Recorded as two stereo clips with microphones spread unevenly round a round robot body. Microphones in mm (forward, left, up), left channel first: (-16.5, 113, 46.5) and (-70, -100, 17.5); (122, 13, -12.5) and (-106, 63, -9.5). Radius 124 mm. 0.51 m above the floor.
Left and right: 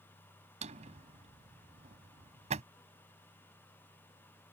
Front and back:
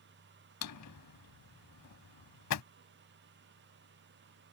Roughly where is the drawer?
Ahead right.